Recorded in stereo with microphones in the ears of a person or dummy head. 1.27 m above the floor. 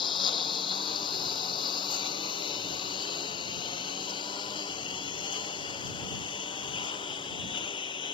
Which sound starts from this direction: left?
A lawn mower, at 0.0 s.